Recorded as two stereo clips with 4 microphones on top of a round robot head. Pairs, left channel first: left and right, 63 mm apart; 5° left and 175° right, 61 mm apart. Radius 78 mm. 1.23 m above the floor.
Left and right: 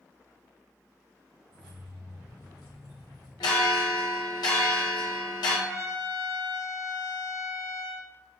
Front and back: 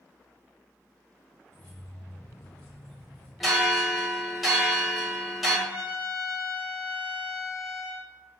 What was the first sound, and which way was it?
Keys jangling, 75° right.